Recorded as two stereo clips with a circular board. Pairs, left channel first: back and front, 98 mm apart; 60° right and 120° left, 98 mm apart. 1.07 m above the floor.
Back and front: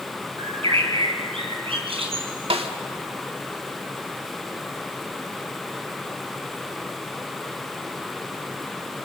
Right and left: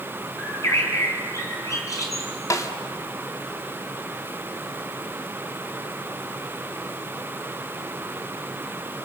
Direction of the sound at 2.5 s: 5° right.